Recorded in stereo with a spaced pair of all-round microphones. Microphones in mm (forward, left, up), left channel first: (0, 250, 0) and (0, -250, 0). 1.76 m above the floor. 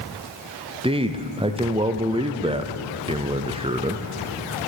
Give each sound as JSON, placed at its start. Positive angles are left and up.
{"t": 0.8, "sound": "a man speaking", "side_deg": -10, "distance_m": 0.7}